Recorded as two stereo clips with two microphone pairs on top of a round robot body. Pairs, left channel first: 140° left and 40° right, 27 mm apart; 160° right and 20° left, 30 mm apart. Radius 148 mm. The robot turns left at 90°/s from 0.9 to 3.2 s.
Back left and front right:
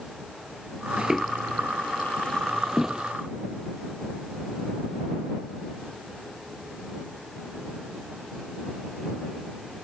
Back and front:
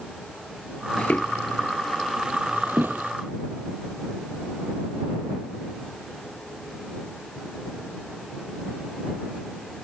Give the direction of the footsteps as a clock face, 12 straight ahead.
3 o'clock.